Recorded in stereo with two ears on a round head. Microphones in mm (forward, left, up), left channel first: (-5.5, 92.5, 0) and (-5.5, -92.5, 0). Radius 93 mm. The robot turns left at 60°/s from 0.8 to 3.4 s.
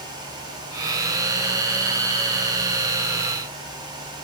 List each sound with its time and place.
Only background noise.